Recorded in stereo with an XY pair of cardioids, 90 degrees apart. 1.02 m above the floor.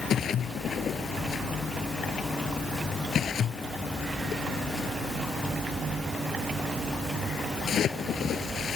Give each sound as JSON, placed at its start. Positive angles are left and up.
{"t": 0.1, "sound": "a splash", "azimuth_deg": 65}